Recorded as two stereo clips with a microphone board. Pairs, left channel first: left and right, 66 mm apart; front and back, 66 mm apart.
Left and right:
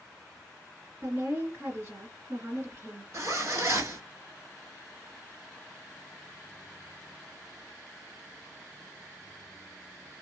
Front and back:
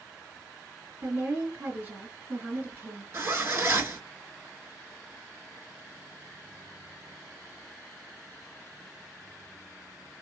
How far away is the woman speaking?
About 2.5 m.